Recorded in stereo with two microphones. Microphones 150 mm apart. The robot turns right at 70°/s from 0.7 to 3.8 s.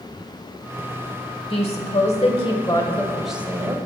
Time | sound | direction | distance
1.5 | a woman speaking | 60° left | 1.3 m